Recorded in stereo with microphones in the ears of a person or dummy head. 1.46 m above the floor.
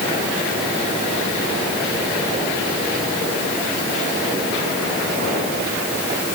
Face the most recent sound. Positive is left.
No sound to turn to.